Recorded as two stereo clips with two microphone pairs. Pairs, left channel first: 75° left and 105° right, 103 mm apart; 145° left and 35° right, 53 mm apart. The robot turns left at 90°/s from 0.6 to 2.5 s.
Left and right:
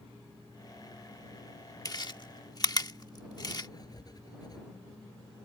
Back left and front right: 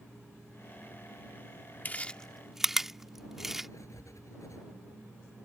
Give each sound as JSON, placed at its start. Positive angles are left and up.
{"t": 1.9, "sound": "chewing", "azimuth_deg": 110}
{"t": 3.7, "sound": "writing", "azimuth_deg": 125}